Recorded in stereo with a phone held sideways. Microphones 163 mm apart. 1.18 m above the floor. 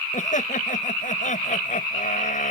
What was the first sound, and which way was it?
Laughter, 50° left (ahead or behind).